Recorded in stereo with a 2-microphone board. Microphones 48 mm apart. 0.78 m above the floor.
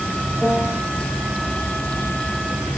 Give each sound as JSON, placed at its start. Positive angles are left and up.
{"t": 0.4, "sound": "a piano", "side_deg": 0, "distance_m": 3.5}